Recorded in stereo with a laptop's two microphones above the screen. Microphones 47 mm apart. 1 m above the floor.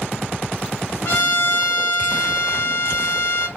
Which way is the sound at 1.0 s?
60° left (ahead or behind).